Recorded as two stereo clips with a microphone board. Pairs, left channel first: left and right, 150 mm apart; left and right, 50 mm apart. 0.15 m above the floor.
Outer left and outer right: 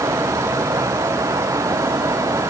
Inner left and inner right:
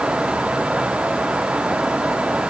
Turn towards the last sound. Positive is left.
No sound to turn to.